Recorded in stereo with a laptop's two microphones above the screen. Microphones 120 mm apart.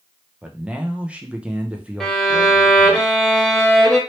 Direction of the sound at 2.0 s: 5° left (ahead or behind).